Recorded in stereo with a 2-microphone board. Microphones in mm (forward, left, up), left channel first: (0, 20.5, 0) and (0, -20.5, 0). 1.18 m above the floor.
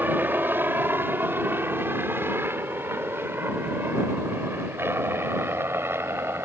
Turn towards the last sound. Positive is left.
turn(degrees=-70)  # may be behind; listen again after turning